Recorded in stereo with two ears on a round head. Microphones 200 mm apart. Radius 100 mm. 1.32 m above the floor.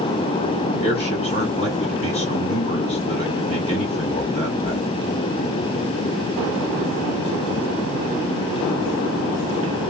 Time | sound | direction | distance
0.8 | a man speaking | 25° left (ahead or behind) | 2 m